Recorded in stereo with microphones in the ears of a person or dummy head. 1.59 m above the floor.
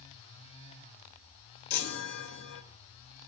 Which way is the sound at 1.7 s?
50° left (ahead or behind).